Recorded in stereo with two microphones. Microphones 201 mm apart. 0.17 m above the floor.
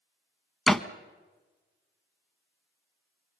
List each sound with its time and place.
0.7 s a door slam: centre (ahead or behind), 0.8 m